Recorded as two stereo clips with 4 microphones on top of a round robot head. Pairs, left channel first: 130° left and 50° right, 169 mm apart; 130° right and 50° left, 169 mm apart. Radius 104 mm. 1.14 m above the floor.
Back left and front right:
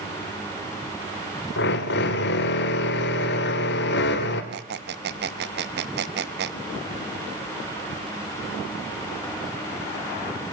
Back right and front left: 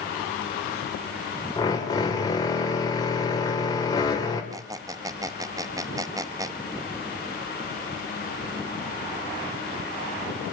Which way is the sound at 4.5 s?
25° right.